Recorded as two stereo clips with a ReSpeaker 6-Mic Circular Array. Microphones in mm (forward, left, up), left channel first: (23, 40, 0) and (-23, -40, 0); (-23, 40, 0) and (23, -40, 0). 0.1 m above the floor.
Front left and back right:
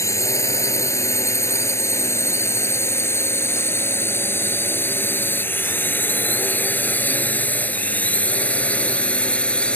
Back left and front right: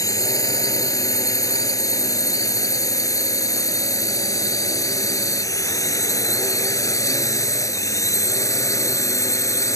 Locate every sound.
0.0 s a drone: 95° left; by 9.8 s 130° left